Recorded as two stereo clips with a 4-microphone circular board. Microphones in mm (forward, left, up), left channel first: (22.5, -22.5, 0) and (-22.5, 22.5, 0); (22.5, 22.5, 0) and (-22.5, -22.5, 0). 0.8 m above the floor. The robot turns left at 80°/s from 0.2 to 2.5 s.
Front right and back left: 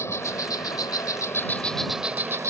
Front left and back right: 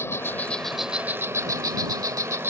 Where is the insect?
5° right; by 2.5 s 175° left.